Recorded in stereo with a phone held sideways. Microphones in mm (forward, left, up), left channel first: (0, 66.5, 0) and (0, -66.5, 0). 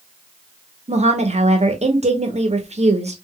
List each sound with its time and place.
0.9 s a woman speaking: 55° right (ahead or behind), 0.8 m